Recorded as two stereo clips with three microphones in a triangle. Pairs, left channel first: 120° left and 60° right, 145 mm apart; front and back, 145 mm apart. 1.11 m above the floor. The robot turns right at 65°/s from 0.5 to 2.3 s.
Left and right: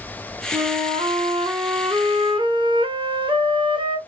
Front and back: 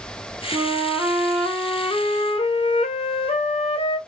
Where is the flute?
135° right, 0.7 m; by 4.0 s 20° right, 0.7 m.